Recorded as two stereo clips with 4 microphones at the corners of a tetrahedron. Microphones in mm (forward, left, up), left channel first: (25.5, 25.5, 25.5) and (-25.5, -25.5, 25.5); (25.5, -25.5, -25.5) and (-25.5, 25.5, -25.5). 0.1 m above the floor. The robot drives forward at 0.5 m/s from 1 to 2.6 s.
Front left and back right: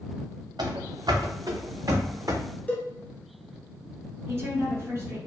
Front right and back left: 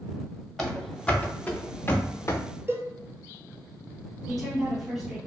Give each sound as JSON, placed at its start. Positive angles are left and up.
{"t": 0.6, "sound": "running footsteps", "azimuth_deg": -135, "distance_m": 0.9}
{"t": 2.7, "sound": "a cowbell", "azimuth_deg": 100, "distance_m": 0.7}
{"t": 4.3, "sound": "a woman speaking", "azimuth_deg": -145, "distance_m": 1.2}